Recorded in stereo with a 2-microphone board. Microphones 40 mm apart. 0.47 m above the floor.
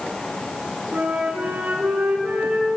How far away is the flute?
About 5.5 m.